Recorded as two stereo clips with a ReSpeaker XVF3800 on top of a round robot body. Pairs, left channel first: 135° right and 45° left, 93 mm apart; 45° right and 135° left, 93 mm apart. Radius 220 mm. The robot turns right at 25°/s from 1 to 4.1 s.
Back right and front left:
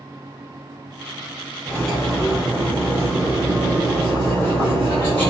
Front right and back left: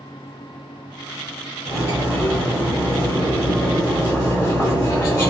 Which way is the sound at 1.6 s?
50° right.